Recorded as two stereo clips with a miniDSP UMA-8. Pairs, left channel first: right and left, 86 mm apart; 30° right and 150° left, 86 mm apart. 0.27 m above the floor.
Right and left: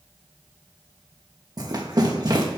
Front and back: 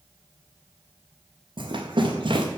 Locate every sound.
1.6 s running footsteps: 130° left, 3.5 m